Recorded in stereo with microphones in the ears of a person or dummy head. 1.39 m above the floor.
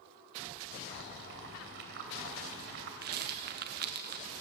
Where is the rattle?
50° right (ahead or behind), 1.2 m.